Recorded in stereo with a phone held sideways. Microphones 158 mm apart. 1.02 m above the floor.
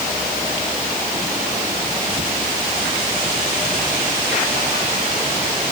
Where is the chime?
No chime in this recording.